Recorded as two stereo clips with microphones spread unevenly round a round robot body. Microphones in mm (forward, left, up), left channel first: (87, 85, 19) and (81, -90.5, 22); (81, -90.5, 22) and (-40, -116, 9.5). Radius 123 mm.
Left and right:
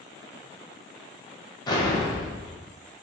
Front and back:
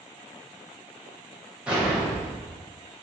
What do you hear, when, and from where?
1.7 s an explosion: 130° left, 0.7 m